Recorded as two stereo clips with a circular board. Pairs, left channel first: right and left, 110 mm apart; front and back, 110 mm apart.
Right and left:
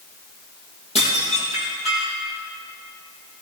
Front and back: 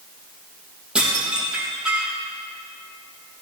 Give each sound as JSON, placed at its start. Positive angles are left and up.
{"t": 0.9, "sound": "dishes clattering", "azimuth_deg": -100, "distance_m": 4.0}